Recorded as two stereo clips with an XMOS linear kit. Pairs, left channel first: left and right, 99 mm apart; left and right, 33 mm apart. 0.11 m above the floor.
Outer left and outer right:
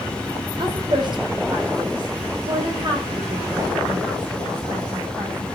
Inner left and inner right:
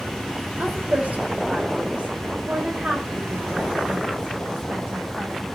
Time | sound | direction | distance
0.6 | a woman speaking | 50° right (ahead or behind) | 3 m